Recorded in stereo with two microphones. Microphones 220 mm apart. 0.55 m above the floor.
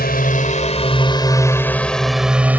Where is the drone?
45° left (ahead or behind); by 2.6 s 10° right (ahead or behind).